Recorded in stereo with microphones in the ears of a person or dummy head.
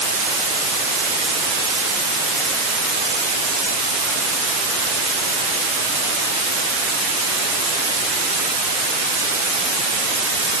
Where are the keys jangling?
No keys jangling in this recording.